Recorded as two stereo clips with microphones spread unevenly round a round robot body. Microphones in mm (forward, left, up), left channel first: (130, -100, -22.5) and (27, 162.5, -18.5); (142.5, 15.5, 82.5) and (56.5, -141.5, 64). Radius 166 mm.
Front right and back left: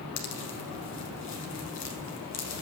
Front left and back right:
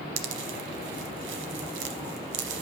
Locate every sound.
0.2 s a pop: 125° right, 1.0 m